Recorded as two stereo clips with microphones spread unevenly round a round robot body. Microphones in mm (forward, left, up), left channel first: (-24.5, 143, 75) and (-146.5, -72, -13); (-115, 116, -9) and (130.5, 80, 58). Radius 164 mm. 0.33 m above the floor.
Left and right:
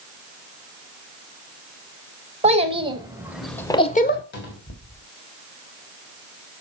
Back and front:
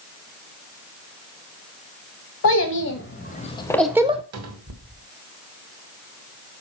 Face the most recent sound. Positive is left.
turn(degrees=0)